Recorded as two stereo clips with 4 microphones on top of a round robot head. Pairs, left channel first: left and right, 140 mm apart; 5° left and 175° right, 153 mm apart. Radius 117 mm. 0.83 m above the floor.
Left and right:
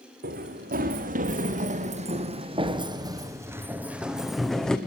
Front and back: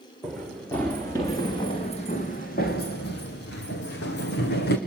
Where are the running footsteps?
85° right, 4 m; by 4.8 s 5° left, 3.5 m.